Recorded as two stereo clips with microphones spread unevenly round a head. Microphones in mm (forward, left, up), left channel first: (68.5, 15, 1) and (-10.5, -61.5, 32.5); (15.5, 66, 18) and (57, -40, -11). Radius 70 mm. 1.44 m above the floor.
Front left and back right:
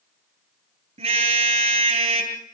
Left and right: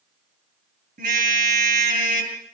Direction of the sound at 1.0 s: 110° right.